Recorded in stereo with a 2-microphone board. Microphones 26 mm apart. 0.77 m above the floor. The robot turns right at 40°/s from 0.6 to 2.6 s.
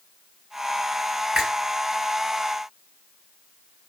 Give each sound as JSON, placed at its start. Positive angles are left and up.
{"t": 1.4, "sound": "a finger snap", "side_deg": -40, "distance_m": 3.0}